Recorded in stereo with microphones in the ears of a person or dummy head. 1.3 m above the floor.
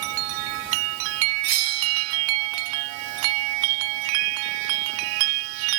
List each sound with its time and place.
1.4 s a bell: 50° right (ahead or behind)